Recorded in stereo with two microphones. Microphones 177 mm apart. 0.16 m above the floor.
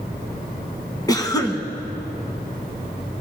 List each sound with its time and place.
1.1 s a cough: 20° left (ahead or behind), 1.1 m